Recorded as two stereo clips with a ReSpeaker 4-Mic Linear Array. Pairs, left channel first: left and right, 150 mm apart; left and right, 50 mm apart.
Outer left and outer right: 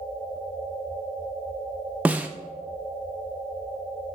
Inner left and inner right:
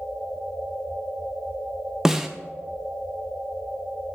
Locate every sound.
2.0 s a snare drum: 10° right (ahead or behind), 0.5 m